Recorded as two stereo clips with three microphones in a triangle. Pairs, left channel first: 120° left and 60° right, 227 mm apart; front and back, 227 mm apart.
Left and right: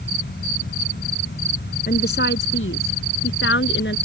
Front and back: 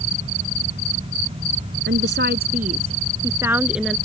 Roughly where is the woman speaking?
Behind.